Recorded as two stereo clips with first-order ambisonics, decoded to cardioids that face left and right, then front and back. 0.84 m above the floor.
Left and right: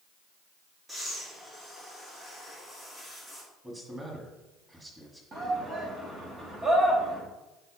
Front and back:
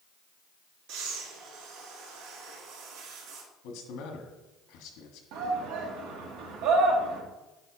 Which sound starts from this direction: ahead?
A man speaking, at 3.6 s.